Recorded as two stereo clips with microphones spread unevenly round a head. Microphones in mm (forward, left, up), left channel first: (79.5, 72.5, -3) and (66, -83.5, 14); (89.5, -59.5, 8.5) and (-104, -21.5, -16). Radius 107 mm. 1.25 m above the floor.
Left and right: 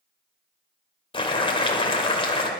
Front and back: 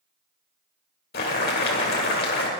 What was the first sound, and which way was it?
Boiling, 25° left.